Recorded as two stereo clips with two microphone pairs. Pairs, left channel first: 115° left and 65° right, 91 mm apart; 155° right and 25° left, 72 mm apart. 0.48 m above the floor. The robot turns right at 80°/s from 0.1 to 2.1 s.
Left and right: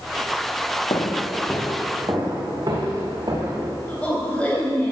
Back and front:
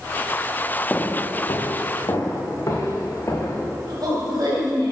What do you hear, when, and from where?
0.9 s footsteps: 135° left, 2 m; by 3.7 s 100° right, 4 m
3.9 s a woman speaking: 40° left, 3 m